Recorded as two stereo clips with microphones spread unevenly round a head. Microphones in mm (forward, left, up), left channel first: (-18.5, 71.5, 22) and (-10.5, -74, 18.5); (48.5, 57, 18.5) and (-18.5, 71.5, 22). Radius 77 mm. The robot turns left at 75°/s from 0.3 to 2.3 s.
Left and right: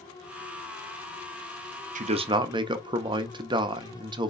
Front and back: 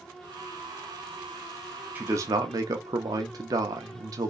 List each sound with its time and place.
1.9 s a man speaking: 120° right, 0.8 m; by 4.3 s 145° right, 0.8 m